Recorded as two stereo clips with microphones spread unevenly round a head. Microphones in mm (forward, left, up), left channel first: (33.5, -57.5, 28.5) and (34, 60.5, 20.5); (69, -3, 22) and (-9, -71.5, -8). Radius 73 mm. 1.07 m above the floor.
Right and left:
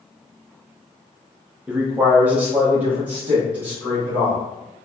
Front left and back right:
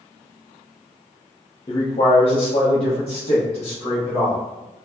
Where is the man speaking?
40° left, 0.6 m; by 4.4 s 15° left, 1.8 m.